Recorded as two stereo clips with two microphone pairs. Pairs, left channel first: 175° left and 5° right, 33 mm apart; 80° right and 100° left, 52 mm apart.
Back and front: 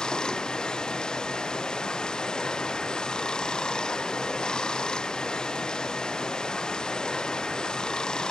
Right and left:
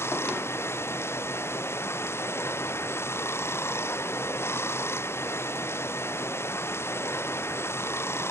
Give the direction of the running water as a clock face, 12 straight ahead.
4 o'clock.